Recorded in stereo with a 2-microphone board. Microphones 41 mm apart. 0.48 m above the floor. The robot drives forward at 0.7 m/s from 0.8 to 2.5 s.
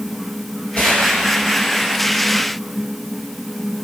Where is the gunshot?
45° left (ahead or behind), 7.5 m.